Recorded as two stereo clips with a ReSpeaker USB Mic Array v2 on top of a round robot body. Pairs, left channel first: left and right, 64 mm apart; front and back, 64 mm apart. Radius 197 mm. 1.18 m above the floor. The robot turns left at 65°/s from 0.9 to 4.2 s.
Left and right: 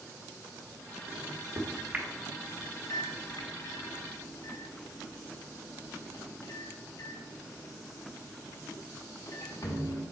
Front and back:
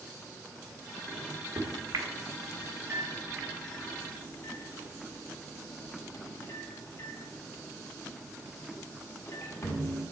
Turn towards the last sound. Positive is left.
turn(degrees=50)